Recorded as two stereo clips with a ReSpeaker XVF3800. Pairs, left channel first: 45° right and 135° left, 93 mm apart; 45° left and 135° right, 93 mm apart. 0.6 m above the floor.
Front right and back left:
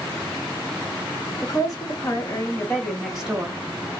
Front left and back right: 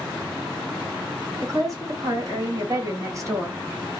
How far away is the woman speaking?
About 1.9 m.